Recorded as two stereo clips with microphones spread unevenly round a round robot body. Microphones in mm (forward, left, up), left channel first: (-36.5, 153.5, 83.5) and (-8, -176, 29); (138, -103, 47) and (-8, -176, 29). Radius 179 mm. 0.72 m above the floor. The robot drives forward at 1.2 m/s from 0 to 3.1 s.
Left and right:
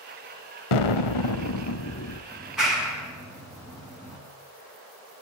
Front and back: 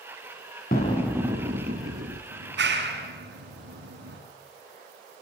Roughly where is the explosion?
Left.